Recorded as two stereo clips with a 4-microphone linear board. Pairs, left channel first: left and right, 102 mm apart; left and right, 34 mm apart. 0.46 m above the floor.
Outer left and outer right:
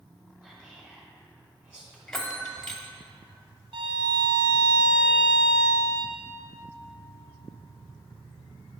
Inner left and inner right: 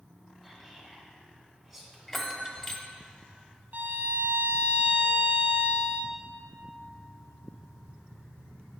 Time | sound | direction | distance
0.4 | whispering | 10° right (ahead or behind) | 2 m
2.1 | a bell | 5° left (ahead or behind) | 0.8 m
3.7 | a violin | 70° right (ahead or behind) | 0.8 m